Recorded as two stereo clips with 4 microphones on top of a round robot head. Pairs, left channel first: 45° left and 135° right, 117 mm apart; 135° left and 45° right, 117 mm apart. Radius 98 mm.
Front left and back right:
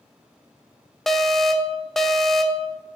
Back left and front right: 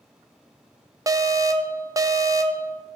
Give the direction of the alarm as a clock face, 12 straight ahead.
1 o'clock.